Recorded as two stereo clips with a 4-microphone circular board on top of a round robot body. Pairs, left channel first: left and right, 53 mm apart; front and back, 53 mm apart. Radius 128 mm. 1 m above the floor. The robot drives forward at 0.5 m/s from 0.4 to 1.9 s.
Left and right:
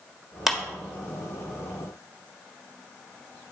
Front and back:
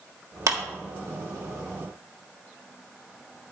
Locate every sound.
0.5 s a clap: 175° right, 1.4 m